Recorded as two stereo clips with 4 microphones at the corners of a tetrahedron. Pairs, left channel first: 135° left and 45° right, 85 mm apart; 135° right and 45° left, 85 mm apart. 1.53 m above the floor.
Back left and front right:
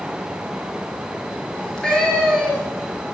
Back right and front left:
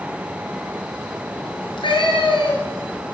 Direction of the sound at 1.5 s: 145° right.